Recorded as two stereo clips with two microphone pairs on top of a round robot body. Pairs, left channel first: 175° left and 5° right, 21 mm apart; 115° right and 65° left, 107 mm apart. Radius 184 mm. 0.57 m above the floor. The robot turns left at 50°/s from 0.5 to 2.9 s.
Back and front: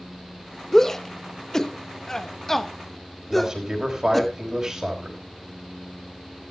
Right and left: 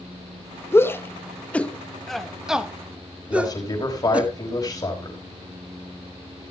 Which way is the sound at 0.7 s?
140° right.